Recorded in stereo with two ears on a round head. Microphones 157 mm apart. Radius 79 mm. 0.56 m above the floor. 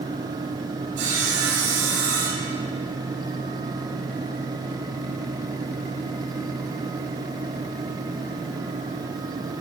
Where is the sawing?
65° right (ahead or behind), 3.5 m.